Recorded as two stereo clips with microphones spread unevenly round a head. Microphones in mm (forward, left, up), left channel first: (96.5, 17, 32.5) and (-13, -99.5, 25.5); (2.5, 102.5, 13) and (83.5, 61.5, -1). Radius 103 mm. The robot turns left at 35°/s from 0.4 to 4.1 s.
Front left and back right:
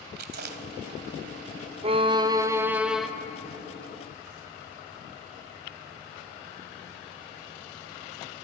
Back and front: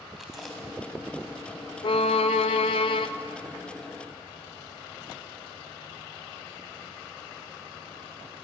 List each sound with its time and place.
0.2 s chewing: 125° right, 1.3 m; by 2.0 s straight behind, 1.3 m
1.8 s a violin: 175° right, 0.9 m; by 3.1 s 140° left, 0.9 m